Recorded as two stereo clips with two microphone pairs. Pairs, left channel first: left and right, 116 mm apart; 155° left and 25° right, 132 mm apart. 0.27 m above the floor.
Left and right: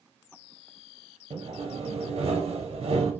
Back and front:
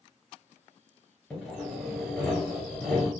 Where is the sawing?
115° right, 1.9 m.